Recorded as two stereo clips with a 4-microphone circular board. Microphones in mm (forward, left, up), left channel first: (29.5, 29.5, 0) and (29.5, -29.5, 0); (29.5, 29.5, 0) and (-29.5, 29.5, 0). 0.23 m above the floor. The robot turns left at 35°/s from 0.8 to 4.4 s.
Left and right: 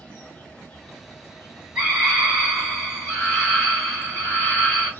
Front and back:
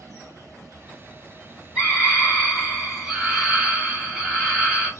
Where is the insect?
160° left, 1.5 m; by 5.0 s 30° left, 1.5 m.